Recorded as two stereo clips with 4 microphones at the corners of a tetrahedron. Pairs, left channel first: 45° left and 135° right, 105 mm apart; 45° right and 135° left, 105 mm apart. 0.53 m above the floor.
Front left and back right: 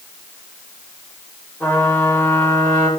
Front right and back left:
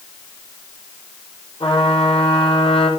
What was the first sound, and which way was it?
A trumpet, 25° right.